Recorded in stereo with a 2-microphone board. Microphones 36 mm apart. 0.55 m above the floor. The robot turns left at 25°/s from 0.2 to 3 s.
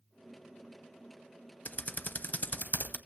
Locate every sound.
1.6 s typing on a keyboard: 50° left (ahead or behind), 0.5 m; by 3.0 s 55° left (ahead or behind), 0.5 m